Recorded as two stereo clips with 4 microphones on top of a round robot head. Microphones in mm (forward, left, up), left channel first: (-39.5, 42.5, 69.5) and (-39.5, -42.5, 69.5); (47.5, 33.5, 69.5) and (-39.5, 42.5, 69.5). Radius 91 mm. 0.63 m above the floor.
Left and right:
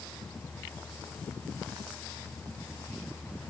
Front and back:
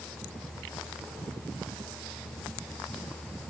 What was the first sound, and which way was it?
Only background noise.